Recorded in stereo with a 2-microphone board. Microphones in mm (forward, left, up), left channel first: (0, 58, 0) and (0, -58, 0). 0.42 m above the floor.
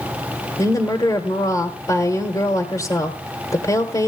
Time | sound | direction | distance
0.6 | a woman speaking | 30° left (ahead or behind) | 1.3 m